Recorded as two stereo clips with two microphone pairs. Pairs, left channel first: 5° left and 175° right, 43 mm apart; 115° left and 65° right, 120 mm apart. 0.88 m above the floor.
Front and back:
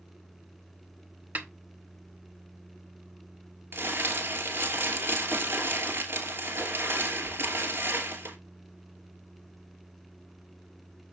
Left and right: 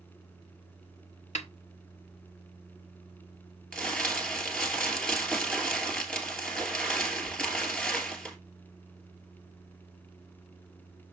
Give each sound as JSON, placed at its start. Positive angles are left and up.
{"t": 1.4, "sound": "a snare drum", "azimuth_deg": 135, "distance_m": 1.0}
{"t": 3.7, "sound": "crumpling", "azimuth_deg": -165, "distance_m": 2.5}